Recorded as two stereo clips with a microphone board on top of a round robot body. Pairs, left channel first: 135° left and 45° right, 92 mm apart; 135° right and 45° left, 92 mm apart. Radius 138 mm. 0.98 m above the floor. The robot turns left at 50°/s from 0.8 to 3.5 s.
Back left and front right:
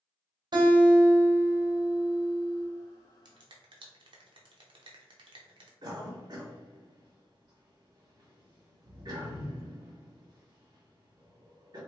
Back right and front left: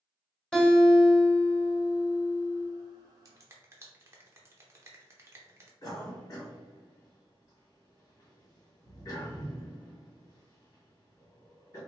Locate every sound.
0.5 s a guitar: 55° right, 1.3 m; by 2.7 s 150° right, 1.3 m
3.2 s a finger snap: 5° right, 0.7 m; by 5.7 s 15° right, 0.7 m
5.8 s a cough: 80° right, 1.7 m